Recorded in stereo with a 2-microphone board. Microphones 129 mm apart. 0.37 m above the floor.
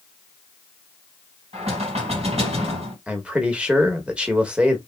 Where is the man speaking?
10° right (ahead or behind), 0.9 m.